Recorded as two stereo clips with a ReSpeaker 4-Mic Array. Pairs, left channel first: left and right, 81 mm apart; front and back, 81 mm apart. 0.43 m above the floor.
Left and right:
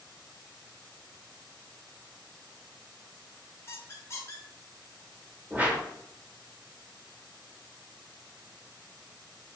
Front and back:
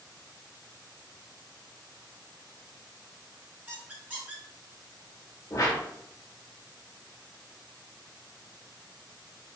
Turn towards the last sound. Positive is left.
turn(degrees=-25)